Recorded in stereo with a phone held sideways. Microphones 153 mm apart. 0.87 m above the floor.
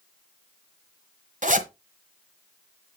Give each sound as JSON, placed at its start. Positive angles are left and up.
{"t": 1.4, "sound": "a zipper", "side_deg": -55, "distance_m": 1.3}